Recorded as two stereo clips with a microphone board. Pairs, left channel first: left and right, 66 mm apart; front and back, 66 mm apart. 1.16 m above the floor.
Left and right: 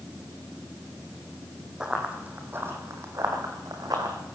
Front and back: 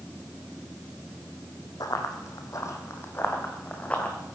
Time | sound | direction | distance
1.8 | running footsteps | 15° right | 3 m